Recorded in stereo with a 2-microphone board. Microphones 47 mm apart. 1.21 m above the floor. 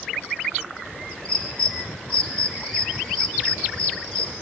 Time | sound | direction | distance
1.2 | a bird | 15° left (ahead or behind) | 3.5 m